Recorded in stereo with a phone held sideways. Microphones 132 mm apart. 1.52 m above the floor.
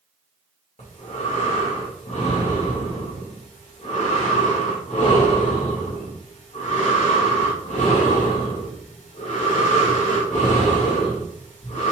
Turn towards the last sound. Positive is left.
turn(degrees=75)  # may be behind; listen again after turning